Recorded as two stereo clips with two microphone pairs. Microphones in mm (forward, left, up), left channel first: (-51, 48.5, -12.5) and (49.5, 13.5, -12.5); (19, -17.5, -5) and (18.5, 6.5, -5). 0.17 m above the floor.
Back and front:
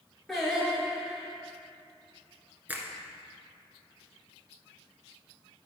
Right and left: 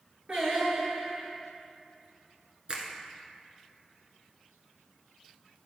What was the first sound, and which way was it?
Singing, 75° left.